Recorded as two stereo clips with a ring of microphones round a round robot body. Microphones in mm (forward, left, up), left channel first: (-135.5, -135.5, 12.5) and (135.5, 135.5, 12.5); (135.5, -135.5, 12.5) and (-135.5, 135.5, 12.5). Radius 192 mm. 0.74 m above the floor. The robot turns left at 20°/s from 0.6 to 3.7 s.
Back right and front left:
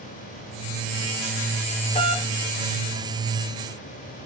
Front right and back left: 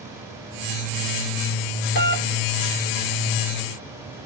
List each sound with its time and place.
1.9 s a doorbell: 70° right, 1.0 m; by 2.3 s 80° right, 1.0 m